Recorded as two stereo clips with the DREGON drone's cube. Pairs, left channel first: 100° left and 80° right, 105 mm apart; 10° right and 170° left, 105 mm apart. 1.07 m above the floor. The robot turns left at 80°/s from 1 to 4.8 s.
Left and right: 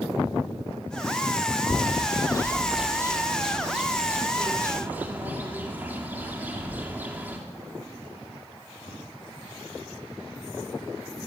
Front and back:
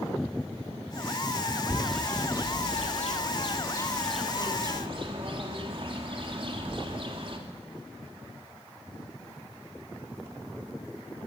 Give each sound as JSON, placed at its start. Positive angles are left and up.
{"t": 1.7, "sound": "a bird", "azimuth_deg": 95, "distance_m": 3.0}